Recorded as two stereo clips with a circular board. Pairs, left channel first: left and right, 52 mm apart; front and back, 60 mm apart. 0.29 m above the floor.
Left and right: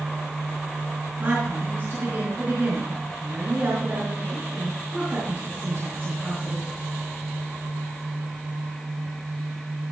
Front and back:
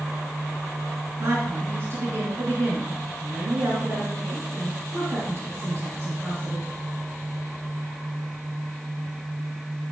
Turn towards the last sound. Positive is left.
turn(degrees=-140)